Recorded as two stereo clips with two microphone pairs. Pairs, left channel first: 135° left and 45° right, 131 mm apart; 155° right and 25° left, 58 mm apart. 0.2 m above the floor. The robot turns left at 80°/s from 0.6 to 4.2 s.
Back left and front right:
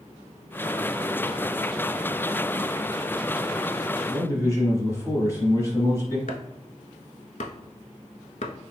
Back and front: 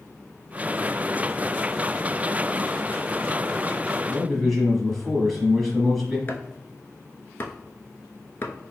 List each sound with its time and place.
4.1 s a man speaking: 125° left, 1.0 m; by 6.2 s 120° left, 1.0 m
6.3 s chopping: 155° left, 0.6 m